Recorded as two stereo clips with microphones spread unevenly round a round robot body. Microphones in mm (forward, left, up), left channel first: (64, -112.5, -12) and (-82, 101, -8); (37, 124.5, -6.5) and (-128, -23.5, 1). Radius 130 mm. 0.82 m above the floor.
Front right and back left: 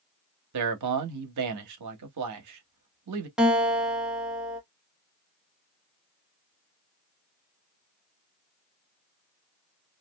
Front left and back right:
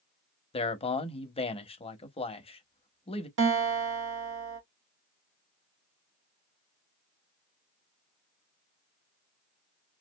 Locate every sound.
0.5 s a man speaking: 105° left, 0.8 m
3.4 s a guitar: 150° right, 1.1 m